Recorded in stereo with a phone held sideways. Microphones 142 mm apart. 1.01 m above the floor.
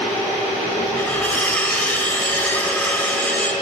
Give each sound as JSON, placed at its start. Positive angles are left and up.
{"t": 1.0, "sound": "cutlery clinking", "side_deg": 10, "distance_m": 2.5}